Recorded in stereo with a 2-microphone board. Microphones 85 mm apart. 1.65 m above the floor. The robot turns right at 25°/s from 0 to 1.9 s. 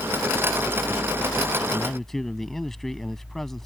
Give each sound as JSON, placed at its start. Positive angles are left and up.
{"t": 1.7, "sound": "a man speaking", "side_deg": 10}